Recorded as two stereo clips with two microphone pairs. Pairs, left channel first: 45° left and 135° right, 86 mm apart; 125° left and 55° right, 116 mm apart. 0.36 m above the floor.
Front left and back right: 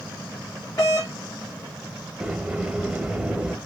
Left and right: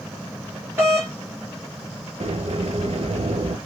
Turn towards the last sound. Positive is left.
turn(degrees=-60)